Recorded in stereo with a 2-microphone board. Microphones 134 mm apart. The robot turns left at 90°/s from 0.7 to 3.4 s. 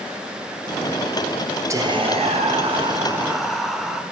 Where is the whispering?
30° right, 0.6 m; by 4.0 s straight behind, 0.6 m.